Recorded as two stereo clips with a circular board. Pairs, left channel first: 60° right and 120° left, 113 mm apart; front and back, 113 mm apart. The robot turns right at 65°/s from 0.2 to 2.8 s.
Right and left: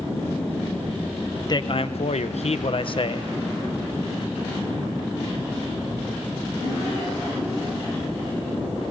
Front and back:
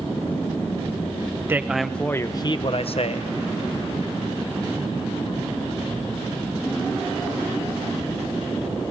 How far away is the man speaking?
About 0.9 m.